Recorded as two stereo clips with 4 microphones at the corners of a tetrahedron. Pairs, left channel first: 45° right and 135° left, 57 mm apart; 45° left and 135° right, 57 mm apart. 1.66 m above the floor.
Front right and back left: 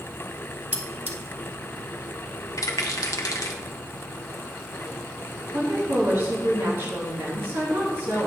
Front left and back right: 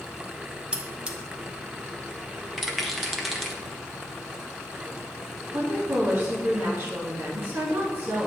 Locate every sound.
0.7 s cutlery clinking: 170° left, 1.0 m
2.6 s a rattle: 45° right, 1.1 m
5.5 s a woman speaking: 170° left, 2.5 m